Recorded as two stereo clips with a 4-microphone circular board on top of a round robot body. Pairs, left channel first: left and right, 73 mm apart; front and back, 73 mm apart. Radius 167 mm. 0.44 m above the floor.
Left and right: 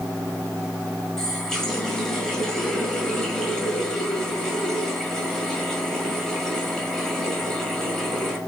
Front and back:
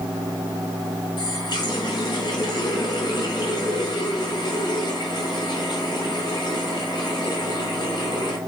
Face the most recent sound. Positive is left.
turn(degrees=5)